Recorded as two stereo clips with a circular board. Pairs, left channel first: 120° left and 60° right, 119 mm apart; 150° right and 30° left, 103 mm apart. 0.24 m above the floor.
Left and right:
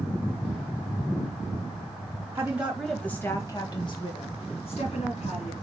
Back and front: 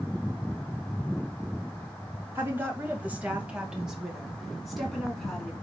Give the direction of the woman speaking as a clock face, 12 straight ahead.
12 o'clock.